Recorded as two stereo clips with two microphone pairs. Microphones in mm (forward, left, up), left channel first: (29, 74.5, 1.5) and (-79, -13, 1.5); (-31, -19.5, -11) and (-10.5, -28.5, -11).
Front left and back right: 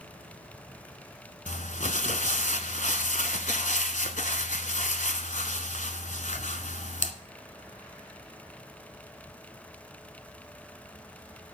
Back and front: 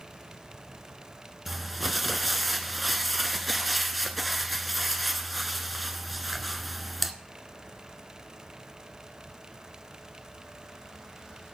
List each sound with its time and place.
1.5 s crumpling: 60° left, 1.0 m